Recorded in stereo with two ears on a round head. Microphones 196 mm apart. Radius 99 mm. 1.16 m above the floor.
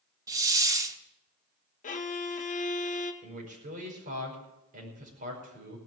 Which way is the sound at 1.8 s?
35° left (ahead or behind).